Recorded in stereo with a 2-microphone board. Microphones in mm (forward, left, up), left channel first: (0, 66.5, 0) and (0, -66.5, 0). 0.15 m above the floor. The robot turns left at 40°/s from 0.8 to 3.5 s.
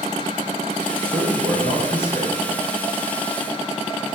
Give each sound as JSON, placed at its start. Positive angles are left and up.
{"t": 1.0, "sound": "a man speaking", "azimuth_deg": -160, "distance_m": 2.5}